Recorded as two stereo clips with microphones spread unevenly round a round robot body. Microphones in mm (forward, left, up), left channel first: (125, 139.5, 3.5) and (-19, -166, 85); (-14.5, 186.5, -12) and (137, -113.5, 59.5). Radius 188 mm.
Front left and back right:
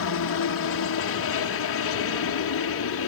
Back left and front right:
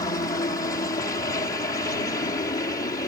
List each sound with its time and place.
0.0 s a helicopter: 50° left